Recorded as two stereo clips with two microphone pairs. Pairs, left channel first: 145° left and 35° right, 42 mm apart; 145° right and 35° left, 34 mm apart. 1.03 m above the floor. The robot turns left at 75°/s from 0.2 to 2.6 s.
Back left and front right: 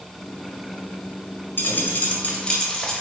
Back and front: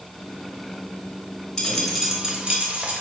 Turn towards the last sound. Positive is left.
turn(degrees=75)